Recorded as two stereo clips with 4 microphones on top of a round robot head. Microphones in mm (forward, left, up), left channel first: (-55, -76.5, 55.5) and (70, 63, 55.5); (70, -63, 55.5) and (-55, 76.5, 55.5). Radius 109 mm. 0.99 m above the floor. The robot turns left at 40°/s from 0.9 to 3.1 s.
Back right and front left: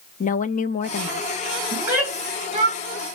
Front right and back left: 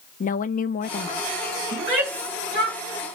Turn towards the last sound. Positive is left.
turn(degrees=85)